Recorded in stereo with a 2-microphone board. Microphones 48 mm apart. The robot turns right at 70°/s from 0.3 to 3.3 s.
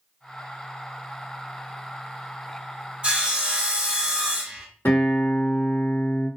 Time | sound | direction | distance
3.0 | sawing | 25° right (ahead or behind) | 1.0 m
4.8 | a guitar | 55° left (ahead or behind) | 2.5 m